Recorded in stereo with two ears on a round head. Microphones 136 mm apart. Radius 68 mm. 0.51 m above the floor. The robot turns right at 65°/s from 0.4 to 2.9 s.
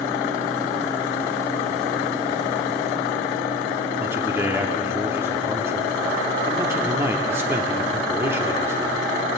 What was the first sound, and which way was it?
A man speaking, 20° right (ahead or behind).